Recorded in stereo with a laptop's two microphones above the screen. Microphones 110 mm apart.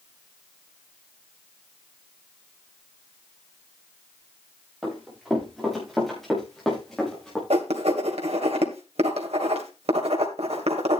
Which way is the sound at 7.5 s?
70° right (ahead or behind).